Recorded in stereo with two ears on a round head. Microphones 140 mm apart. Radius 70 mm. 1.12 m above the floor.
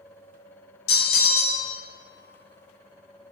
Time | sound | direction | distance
0.9 | a bell | 75° left (ahead or behind) | 1.9 m